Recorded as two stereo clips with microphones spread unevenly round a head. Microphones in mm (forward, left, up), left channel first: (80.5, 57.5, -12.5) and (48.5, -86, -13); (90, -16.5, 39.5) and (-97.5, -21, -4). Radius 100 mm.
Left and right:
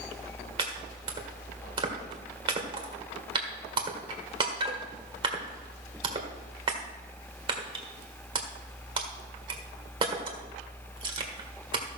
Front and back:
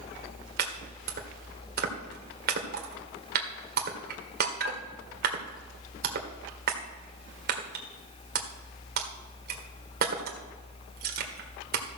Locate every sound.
0.6 s chopping: 145° right, 1.6 m